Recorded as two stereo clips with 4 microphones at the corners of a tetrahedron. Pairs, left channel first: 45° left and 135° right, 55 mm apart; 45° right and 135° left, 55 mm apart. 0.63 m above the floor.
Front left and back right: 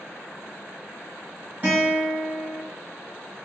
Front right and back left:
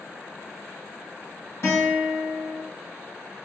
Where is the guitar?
75° right, 2 m.